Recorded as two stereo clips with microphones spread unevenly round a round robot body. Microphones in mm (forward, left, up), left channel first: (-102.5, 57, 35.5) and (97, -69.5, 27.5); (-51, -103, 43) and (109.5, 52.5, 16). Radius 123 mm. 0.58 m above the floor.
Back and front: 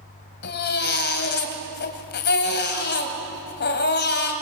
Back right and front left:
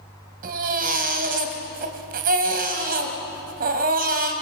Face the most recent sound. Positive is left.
turn(degrees=100)